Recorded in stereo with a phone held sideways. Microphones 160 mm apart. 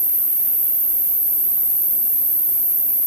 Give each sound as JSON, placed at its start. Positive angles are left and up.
{"t": 0.0, "sound": "an insect", "side_deg": -45, "distance_m": 2.0}